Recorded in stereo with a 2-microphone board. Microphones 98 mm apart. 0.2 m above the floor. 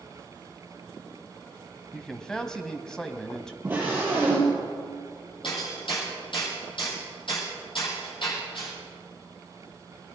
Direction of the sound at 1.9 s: 5° left (ahead or behind).